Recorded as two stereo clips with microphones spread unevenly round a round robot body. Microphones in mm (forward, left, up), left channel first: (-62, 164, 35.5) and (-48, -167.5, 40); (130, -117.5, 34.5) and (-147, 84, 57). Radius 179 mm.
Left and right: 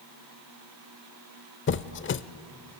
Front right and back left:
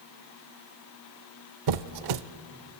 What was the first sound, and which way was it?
A squeak, 145° left.